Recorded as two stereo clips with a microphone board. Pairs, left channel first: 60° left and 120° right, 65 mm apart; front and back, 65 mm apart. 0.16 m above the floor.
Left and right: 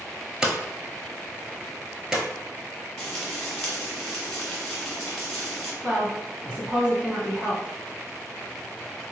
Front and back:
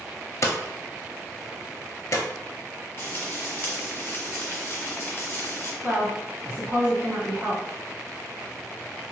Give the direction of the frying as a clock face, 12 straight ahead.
12 o'clock.